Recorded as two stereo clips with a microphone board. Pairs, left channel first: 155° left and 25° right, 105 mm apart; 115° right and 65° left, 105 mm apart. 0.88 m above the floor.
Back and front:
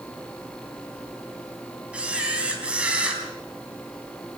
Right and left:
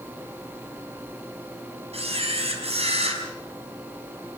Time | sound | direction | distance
1.9 | a camera shutter | 55° left | 4.5 m